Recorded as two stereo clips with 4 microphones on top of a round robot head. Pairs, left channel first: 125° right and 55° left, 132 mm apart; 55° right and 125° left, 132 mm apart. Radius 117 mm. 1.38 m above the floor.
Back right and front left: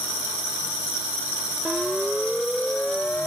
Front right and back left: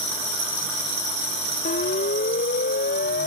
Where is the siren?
35° right; by 3.3 s 45° right.